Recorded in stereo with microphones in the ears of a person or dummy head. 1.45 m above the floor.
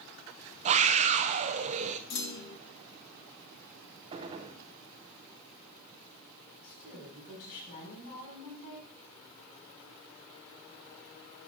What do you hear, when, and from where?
0.7 s a scream: 40° right (ahead or behind), 0.7 m
2.1 s a clunk: 55° left (ahead or behind), 0.8 m
4.1 s a gunshot: 25° right (ahead or behind), 0.5 m
6.6 s a woman speaking: 55° left (ahead or behind), 5.5 m